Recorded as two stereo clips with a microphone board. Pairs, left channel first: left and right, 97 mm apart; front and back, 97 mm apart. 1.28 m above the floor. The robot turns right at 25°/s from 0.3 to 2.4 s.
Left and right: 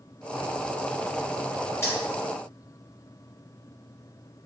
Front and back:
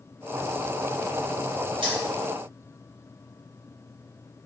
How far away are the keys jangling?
About 1.2 m.